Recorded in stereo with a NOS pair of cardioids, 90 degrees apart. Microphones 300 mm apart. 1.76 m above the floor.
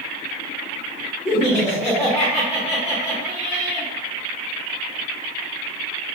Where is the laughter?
20° left, 1.0 m.